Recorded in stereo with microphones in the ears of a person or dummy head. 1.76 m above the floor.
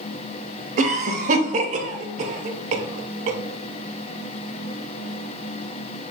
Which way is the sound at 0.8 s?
40° right (ahead or behind).